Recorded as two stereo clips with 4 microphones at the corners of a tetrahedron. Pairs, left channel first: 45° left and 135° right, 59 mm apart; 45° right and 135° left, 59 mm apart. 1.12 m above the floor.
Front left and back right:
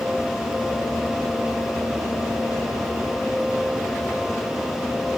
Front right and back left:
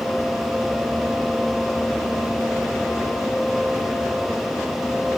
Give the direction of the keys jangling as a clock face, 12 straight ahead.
I don't hear keys jangling.